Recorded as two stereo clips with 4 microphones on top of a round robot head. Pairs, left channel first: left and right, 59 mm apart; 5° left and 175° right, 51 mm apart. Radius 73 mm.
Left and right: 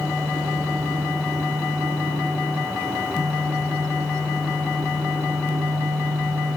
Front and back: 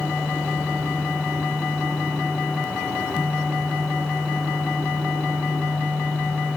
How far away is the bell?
No bell in this recording.